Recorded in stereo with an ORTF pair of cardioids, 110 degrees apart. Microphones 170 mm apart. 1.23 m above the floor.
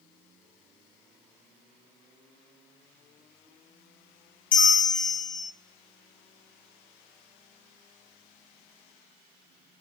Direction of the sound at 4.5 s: 50° left.